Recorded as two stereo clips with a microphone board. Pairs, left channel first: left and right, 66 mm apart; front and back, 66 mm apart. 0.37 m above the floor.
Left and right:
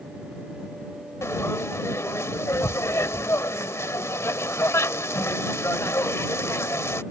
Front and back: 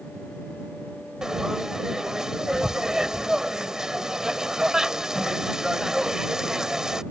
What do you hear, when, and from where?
1.2 s frying: 105° left